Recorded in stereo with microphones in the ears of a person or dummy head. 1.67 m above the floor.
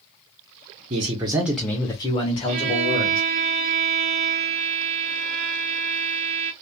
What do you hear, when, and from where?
0.9 s a man speaking: 30° right (ahead or behind), 0.7 m; by 3.2 s 40° left (ahead or behind), 1.5 m
2.5 s a violin: 35° right (ahead or behind), 0.9 m